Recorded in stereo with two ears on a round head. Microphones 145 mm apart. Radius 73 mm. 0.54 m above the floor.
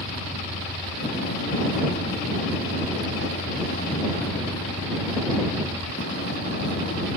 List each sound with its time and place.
0.0 s a vehicle: 65° left (ahead or behind)